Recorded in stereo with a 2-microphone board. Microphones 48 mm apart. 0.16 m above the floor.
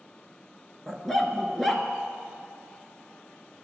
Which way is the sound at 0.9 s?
5° left (ahead or behind).